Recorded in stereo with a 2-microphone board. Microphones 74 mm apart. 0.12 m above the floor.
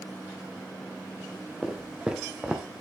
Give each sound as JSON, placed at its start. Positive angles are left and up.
{"t": 1.6, "sound": "footsteps", "side_deg": -15, "distance_m": 1.7}